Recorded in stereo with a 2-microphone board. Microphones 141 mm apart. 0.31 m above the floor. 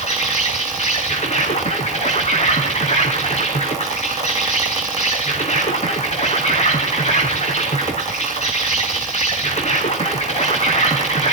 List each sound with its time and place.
0.0 s an insect: 50° left (ahead or behind), 4 m